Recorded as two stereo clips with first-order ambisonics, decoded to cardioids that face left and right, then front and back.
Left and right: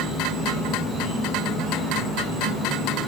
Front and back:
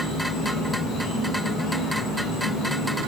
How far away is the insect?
About 2.0 m.